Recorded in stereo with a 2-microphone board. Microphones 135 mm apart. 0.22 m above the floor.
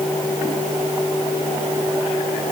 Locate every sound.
Only background noise.